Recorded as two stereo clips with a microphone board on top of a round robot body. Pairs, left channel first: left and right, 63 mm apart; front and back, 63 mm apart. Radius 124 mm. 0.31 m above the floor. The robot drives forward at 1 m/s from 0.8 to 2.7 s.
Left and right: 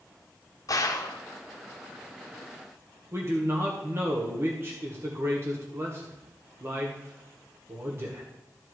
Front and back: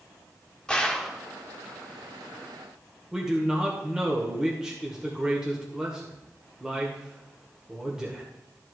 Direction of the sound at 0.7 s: 75° left.